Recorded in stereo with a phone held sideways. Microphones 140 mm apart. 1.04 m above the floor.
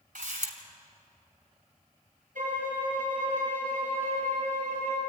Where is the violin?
70° right (ahead or behind), 6.5 m.